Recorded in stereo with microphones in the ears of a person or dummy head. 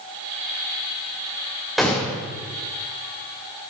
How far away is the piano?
No piano in this recording.